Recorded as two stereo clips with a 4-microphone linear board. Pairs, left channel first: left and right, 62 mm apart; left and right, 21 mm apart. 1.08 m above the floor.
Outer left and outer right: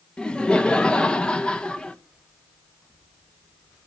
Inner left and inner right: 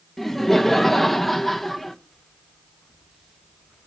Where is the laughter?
15° left (ahead or behind), 0.7 m.